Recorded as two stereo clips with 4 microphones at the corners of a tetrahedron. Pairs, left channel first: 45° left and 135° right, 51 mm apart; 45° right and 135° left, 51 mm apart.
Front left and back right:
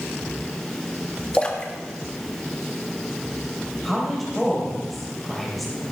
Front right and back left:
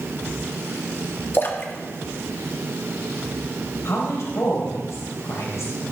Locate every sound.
1.3 s a splash: 20° right, 1.3 m
3.9 s a woman speaking: 45° right, 3 m